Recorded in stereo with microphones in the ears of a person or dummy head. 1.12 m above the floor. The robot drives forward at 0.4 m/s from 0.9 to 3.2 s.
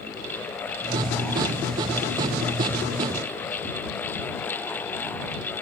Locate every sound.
Only background noise.